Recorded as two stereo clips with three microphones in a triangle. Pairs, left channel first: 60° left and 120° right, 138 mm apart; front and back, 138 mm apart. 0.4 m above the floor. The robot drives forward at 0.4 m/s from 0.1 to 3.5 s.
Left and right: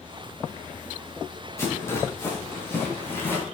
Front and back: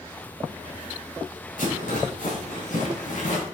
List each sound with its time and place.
1.6 s a rattle: 10° right, 3 m; by 3.4 s 15° right, 2.5 m